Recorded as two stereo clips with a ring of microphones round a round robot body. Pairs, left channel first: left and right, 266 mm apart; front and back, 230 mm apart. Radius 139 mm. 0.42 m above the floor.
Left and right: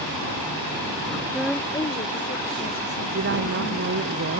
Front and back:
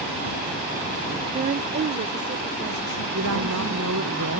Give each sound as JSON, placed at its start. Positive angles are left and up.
{"t": 1.3, "sound": "a woman speaking", "azimuth_deg": -165}
{"t": 3.1, "sound": "a woman speaking", "azimuth_deg": -140}